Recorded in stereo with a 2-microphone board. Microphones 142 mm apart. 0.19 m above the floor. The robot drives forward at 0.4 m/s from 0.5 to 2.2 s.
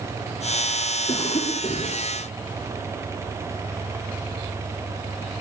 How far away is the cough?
About 7 m.